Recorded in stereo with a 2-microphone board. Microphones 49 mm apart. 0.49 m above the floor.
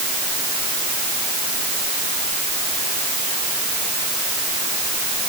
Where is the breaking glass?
No breaking glass in this recording.